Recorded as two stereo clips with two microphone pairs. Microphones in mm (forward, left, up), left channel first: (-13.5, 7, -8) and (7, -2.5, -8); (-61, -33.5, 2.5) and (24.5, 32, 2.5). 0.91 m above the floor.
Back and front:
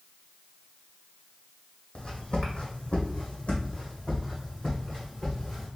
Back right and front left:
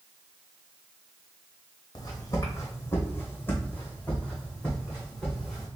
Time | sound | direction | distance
1.9 | footsteps | 175° left | 1.4 m